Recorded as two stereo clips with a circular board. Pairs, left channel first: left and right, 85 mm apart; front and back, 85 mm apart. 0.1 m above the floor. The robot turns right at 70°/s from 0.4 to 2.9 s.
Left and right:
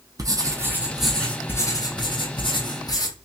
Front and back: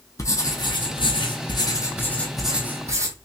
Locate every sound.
0.2 s writing: 50° right, 1.0 m; by 3.1 s 125° left, 1.0 m